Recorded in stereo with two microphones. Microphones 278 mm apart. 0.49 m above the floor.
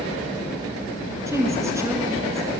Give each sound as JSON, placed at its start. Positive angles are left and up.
{"t": 1.3, "sound": "a woman speaking", "side_deg": -10, "distance_m": 5.5}